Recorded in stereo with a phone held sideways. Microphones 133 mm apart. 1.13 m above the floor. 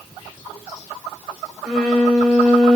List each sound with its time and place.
1.6 s a violin: 5° right (ahead or behind), 1.2 m